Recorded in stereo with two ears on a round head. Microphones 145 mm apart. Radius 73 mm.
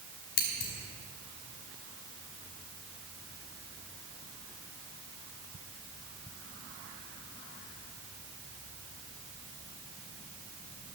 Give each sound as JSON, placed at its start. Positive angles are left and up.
{"t": 0.4, "sound": "scissors", "side_deg": 85, "distance_m": 3.0}